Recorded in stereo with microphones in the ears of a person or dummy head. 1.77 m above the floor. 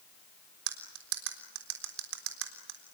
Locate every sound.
0.7 s cutlery clinking: 70° right (ahead or behind), 3 m